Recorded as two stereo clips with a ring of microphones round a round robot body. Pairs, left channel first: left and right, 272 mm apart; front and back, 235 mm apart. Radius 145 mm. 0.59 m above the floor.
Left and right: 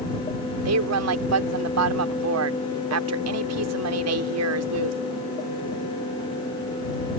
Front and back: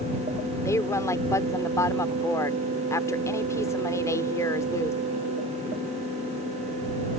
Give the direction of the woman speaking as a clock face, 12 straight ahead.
3 o'clock.